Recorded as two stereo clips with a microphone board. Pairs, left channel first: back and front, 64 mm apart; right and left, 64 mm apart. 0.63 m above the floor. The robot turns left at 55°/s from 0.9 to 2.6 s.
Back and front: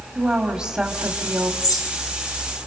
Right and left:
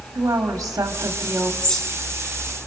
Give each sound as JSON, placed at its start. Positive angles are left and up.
{"t": 0.1, "sound": "a woman speaking", "azimuth_deg": 65, "distance_m": 1.7}
{"t": 1.6, "sound": "a bird", "azimuth_deg": -165, "distance_m": 3.0}